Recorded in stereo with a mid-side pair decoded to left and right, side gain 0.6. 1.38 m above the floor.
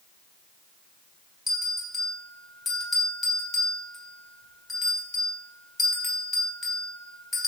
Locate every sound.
1.5 s a bell: 20° left, 1.0 m